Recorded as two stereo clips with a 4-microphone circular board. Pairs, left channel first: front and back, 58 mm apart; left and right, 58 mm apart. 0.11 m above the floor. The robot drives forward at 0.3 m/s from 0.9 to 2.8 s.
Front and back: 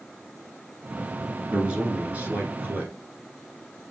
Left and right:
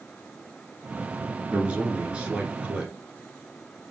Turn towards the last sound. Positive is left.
turn(degrees=-150)